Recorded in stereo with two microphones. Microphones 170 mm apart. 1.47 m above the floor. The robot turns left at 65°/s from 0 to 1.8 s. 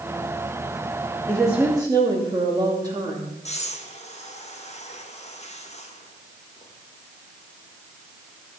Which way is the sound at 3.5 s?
40° left (ahead or behind).